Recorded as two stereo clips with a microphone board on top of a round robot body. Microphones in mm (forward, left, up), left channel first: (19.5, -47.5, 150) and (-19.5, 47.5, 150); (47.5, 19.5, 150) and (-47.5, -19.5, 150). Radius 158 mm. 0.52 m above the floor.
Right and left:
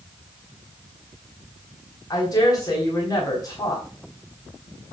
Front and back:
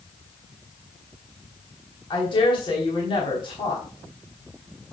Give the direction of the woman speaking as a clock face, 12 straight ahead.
12 o'clock.